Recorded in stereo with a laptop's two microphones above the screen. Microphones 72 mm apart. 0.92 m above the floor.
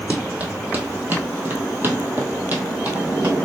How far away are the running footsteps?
About 1.5 m.